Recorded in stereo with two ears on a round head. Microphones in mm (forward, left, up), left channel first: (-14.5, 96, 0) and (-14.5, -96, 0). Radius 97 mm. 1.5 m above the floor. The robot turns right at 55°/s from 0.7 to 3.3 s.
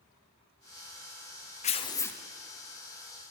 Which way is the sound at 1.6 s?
145° left.